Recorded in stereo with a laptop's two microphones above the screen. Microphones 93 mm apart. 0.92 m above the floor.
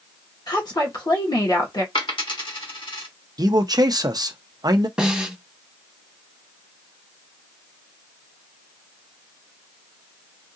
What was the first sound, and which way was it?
A woman speaking, 45° left (ahead or behind).